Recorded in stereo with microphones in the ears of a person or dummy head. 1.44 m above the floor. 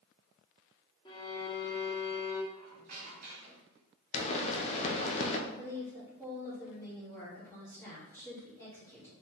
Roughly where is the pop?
Left.